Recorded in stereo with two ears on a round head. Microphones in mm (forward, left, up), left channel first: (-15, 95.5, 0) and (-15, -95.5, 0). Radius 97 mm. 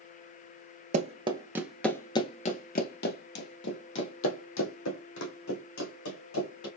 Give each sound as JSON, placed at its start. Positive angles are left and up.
{"t": 0.9, "sound": "running footsteps", "side_deg": -35, "distance_m": 0.9}